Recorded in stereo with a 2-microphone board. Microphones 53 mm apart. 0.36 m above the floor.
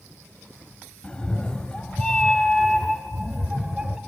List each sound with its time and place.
1.0 s a cat meowing: 20° left (ahead or behind), 1.2 m; by 4.0 s 15° right (ahead or behind), 0.9 m